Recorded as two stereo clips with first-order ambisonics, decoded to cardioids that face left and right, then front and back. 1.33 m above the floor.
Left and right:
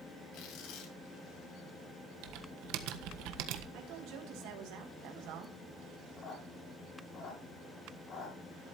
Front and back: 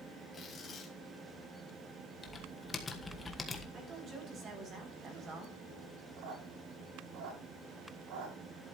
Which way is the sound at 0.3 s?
70° left.